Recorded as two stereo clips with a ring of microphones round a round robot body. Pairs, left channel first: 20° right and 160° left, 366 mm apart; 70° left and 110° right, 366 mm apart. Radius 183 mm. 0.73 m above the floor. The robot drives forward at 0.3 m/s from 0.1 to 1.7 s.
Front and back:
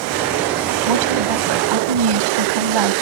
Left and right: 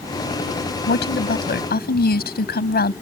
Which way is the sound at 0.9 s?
130° left.